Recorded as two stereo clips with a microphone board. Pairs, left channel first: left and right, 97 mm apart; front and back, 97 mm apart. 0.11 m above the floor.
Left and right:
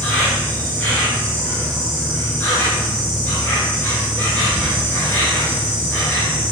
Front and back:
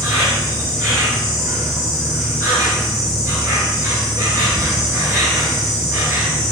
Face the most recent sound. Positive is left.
turn(degrees=150)